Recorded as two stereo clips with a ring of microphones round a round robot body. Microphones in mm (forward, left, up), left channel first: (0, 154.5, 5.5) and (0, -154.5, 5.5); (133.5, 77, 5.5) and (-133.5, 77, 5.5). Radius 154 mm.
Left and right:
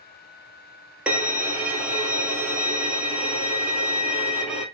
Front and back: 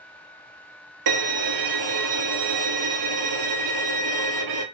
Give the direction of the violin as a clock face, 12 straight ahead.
6 o'clock.